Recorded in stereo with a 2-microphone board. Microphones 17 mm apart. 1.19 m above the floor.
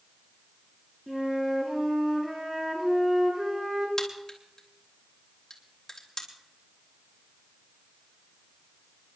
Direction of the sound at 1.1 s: 30° right (ahead or behind).